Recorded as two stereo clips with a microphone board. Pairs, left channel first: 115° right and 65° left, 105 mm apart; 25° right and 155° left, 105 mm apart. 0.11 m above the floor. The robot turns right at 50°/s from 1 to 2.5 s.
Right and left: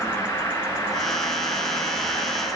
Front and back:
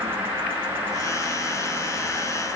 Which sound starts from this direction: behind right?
An insect, at 0.0 s.